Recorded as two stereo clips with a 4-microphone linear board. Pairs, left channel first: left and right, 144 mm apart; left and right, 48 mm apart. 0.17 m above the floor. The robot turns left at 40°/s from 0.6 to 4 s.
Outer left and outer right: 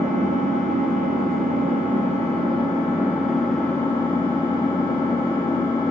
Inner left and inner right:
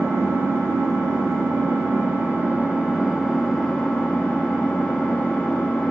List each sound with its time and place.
0.0 s an engine running: 70° right, 0.7 m; by 5.9 s 155° left, 0.7 m